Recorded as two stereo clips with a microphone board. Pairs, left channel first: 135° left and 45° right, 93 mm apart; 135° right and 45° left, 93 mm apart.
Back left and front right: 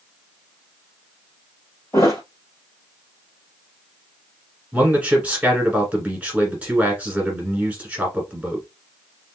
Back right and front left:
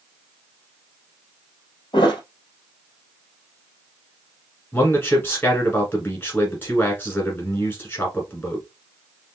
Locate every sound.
1.9 s a thud: 165° right, 1.7 m
4.7 s a man speaking: 105° right, 1.5 m